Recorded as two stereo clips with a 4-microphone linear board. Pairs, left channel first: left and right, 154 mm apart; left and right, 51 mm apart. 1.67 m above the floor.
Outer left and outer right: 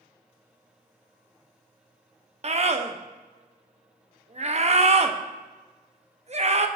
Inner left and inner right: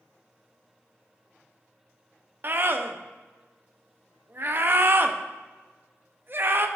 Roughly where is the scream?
Right.